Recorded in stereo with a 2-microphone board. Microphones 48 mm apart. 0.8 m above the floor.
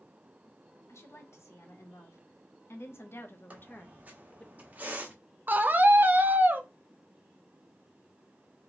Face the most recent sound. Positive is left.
turn(degrees=-40)  # may be behind; listen again after turning